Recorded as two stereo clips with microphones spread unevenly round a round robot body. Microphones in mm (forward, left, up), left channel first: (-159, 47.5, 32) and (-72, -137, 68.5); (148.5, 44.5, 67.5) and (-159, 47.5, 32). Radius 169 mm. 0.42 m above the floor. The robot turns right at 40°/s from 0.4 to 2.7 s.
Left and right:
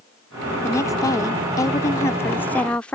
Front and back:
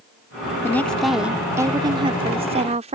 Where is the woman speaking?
85° left; by 3.0 s 170° left.